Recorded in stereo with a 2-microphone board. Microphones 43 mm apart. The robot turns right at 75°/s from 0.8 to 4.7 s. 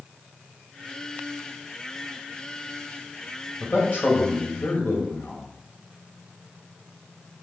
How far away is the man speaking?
About 2 m.